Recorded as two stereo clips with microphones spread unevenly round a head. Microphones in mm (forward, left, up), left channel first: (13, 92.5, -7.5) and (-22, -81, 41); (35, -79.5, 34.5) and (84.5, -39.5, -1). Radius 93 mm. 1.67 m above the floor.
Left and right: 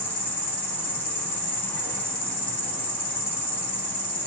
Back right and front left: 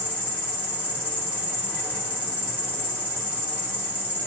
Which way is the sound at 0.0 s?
115° left.